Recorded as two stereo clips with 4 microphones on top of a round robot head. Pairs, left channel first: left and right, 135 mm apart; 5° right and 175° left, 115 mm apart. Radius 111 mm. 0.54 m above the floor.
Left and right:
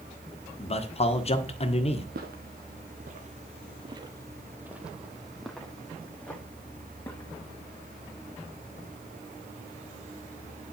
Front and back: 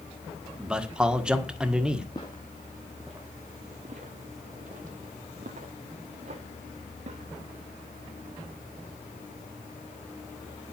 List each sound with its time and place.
0.6 s a man speaking: 95° left, 1.6 m
2.1 s footsteps: 70° right, 1.2 m; by 7.3 s 165° left, 2.5 m